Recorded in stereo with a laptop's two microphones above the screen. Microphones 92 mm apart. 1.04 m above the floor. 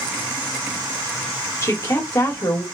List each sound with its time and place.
1.6 s a woman speaking: 35° left (ahead or behind), 2.5 m